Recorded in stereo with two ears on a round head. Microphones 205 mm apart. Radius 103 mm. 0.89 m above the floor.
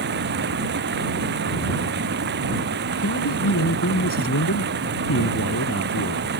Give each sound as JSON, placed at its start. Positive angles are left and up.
{"t": 0.0, "sound": "running water", "side_deg": -50}
{"t": 3.0, "sound": "a man speaking", "side_deg": 65}